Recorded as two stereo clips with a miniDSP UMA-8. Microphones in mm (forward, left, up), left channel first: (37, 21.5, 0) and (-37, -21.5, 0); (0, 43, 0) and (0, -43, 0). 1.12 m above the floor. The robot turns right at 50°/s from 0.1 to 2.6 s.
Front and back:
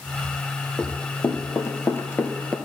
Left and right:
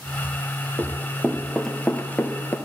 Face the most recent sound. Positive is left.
turn(degrees=100)